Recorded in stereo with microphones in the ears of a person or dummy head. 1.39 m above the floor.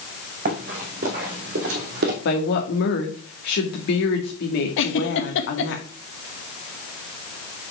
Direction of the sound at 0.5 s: 45° right (ahead or behind).